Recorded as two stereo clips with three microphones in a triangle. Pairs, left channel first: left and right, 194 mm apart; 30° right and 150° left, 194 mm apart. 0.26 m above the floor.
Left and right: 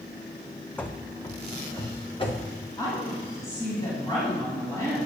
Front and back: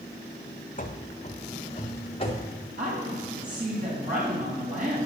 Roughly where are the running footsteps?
Ahead.